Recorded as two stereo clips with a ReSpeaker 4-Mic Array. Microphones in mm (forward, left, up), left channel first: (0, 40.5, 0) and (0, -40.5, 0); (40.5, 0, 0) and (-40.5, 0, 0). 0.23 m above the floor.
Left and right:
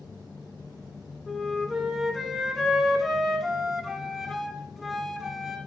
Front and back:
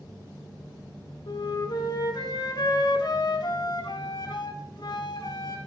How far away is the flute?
About 1.2 m.